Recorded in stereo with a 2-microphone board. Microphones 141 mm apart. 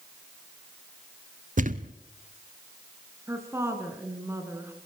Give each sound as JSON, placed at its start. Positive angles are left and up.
{"t": 1.6, "sound": "a thud", "side_deg": -65, "distance_m": 0.6}
{"t": 3.3, "sound": "a woman speaking", "side_deg": -20, "distance_m": 3.5}